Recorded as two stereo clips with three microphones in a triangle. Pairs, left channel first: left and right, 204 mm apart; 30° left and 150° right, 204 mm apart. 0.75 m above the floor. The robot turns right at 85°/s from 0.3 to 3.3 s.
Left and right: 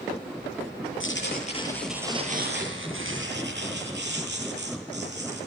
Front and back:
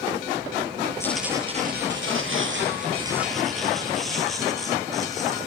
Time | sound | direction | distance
1.0 | tearing paper | 105° left | 8 m